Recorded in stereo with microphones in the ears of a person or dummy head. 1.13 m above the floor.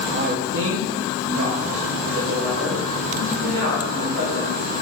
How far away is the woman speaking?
About 0.5 m.